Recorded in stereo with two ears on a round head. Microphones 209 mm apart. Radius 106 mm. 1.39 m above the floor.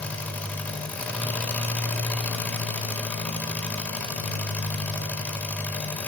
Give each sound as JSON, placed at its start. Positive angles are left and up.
{"t": 0.0, "sound": "an engine running", "side_deg": 5, "distance_m": 1.1}